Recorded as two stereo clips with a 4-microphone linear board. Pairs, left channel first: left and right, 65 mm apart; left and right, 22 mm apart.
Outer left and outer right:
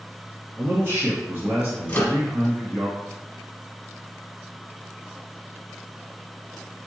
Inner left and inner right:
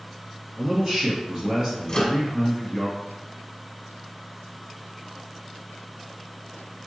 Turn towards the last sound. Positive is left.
turn(degrees=25)  # may be behind; listen again after turning